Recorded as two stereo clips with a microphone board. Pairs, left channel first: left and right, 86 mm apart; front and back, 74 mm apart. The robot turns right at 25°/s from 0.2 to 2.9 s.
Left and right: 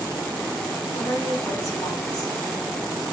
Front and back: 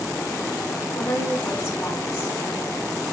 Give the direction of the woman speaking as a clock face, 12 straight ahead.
11 o'clock.